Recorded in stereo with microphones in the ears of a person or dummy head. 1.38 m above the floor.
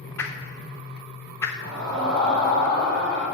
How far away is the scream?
About 3 m.